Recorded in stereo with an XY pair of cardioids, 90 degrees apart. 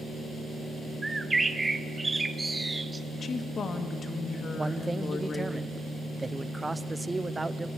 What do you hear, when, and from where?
1.0 s a bird: 20° right, 0.9 m
3.1 s a woman speaking: 50° left, 1.7 m
4.6 s a man speaking: 15° right, 0.7 m